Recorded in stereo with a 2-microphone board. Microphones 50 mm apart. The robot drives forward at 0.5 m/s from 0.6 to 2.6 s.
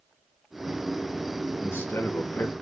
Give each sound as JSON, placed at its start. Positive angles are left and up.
{"t": 1.6, "sound": "a man speaking", "side_deg": 55, "distance_m": 0.9}